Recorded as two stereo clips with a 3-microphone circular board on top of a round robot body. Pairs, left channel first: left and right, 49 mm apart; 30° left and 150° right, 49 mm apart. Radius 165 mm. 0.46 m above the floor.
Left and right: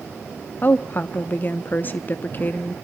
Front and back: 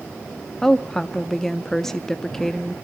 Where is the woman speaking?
105° left, 0.9 m.